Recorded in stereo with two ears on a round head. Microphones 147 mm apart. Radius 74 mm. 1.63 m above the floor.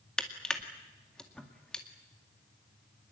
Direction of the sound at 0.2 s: 5° left (ahead or behind).